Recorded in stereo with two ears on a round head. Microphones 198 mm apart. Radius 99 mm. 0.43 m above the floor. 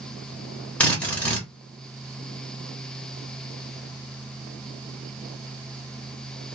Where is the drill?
5° left (ahead or behind), 1.1 m.